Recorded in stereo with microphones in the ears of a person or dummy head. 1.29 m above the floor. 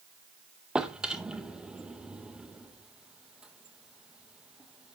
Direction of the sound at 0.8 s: 5° right (ahead or behind).